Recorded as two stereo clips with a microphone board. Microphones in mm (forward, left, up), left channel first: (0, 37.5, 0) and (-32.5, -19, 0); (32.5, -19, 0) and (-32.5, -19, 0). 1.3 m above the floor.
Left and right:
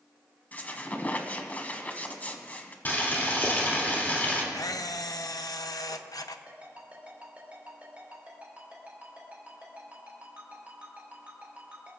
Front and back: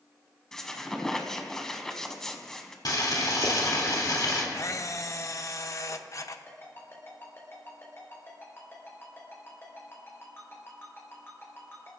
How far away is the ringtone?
About 4 m.